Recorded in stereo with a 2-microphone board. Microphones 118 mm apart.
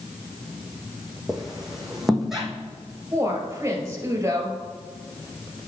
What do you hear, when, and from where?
1.3 s a squeak: 5° right (ahead or behind), 1.5 m
3.1 s a woman speaking: 25° right (ahead or behind), 2 m